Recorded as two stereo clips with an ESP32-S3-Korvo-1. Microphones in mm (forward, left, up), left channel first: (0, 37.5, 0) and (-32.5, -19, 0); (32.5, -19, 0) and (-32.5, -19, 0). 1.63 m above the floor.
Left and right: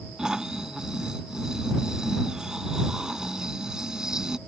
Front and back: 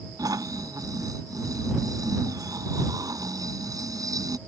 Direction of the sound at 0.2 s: 160° left.